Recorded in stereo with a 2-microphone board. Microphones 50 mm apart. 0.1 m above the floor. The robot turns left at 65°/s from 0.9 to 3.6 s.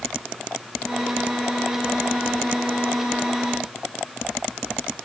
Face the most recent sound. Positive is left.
No sound to turn to.